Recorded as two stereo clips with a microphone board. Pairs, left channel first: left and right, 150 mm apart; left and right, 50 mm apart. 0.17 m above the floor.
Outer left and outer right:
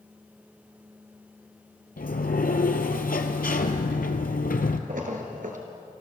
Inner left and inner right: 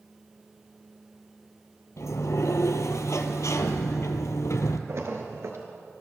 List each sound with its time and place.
2.0 s a sliding door: 80° left, 0.8 m
4.9 s a splash: 65° right (ahead or behind), 1.6 m